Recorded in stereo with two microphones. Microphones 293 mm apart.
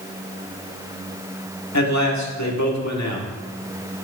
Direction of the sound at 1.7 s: 70° left (ahead or behind).